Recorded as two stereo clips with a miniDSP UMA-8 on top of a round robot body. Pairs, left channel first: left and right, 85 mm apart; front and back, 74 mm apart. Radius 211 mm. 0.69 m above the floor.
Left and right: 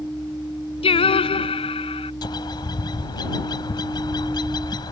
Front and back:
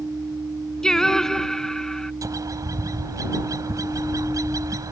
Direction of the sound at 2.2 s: 130° left.